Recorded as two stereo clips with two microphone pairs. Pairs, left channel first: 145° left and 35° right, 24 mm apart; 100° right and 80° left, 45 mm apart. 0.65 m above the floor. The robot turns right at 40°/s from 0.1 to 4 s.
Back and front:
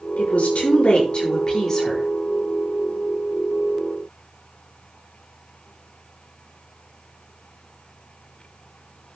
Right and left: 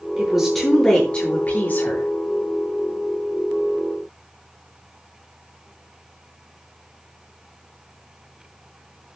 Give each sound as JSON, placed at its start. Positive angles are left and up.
{"t": 0.2, "sound": "a woman speaking", "azimuth_deg": 155, "distance_m": 9.0}